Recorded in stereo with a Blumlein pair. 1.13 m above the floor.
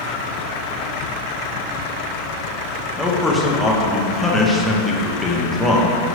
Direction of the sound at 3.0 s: 5° left.